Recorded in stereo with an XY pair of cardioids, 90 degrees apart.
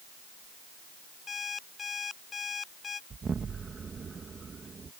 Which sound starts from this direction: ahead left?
An alarm clock, at 1.3 s.